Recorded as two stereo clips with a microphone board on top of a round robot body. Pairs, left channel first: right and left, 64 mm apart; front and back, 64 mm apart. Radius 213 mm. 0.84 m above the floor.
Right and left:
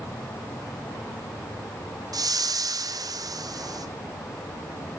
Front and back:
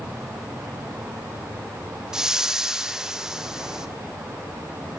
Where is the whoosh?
100° left, 0.9 m.